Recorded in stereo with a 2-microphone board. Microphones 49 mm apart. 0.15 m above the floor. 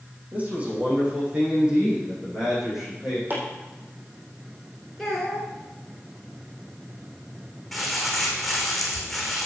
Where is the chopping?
40° right (ahead or behind), 4 m.